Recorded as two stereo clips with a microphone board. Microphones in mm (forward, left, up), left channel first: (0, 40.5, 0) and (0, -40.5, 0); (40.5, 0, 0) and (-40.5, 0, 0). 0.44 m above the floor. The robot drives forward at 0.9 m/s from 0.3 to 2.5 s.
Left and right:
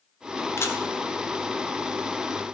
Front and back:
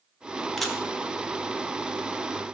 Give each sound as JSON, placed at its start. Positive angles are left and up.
{"t": 0.6, "sound": "a camera shutter", "azimuth_deg": 85, "distance_m": 1.3}